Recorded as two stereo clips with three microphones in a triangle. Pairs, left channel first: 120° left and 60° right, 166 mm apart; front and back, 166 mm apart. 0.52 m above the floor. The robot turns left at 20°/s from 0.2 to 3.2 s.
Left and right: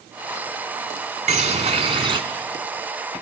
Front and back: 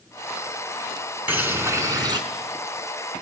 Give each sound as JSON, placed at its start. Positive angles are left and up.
{"t": 1.3, "sound": "a bird", "azimuth_deg": -100, "distance_m": 0.9}